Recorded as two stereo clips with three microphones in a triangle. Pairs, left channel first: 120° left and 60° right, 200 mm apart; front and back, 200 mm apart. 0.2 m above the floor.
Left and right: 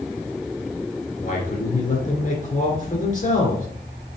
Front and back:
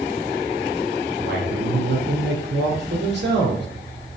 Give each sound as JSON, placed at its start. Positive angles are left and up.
{"t": 1.2, "sound": "a man speaking", "azimuth_deg": 165, "distance_m": 3.0}